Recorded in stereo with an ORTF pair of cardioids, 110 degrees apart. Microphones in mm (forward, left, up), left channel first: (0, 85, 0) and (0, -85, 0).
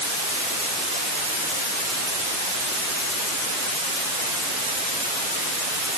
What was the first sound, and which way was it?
Only background noise.